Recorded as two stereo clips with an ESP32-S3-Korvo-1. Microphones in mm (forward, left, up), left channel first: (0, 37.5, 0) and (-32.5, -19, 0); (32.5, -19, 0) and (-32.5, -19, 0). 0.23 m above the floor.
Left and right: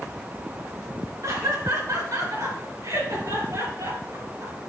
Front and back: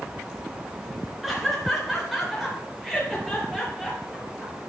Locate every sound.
1.2 s laughter: 90° right, 3 m; by 4.5 s 95° right, 5.5 m